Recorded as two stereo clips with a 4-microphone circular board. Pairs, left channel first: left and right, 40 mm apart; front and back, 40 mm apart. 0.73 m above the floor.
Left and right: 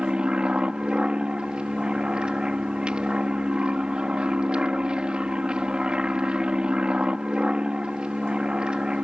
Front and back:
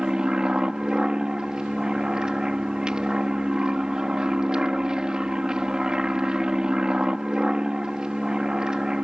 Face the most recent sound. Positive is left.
turn(degrees=-130)